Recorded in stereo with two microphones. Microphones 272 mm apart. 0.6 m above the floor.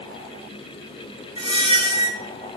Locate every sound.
1.4 s a squeak: 20° right (ahead or behind), 0.8 m